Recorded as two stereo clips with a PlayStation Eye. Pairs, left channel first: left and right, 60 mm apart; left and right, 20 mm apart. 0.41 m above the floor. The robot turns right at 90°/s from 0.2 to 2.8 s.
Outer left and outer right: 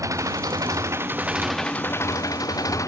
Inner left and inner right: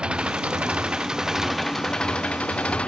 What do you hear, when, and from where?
0.0 s an engine running: 120° right; by 2.9 s 115° left